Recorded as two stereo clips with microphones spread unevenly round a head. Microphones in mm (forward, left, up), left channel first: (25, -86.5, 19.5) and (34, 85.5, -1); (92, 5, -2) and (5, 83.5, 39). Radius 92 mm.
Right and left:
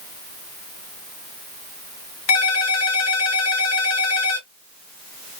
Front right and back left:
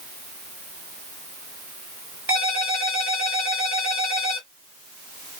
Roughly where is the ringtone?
Right.